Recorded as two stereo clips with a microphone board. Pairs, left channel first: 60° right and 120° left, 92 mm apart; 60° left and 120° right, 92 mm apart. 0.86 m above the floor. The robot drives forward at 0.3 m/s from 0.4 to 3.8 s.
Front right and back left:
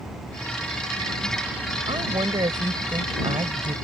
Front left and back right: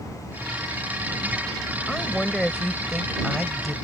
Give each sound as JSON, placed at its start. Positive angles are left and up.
{"t": 1.9, "sound": "a woman speaking", "azimuth_deg": 145}